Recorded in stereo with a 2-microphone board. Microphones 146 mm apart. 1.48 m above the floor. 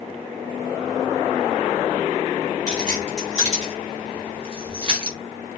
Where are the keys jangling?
55° right (ahead or behind), 2.5 m; by 5.2 s 30° right (ahead or behind), 1.5 m.